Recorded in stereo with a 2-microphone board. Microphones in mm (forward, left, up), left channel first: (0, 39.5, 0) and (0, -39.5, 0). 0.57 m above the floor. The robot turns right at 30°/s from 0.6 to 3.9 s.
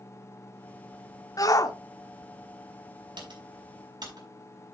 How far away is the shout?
About 1.0 m.